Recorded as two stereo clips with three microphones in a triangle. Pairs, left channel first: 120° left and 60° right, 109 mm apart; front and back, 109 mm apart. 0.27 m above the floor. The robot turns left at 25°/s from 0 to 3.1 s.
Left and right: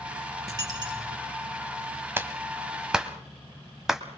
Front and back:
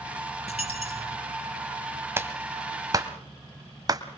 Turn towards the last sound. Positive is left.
turn(degrees=-145)